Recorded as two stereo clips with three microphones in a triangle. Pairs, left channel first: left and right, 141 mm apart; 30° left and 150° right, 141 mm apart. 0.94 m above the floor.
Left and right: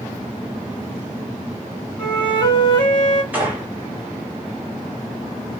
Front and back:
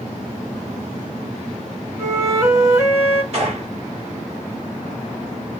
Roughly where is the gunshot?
Behind.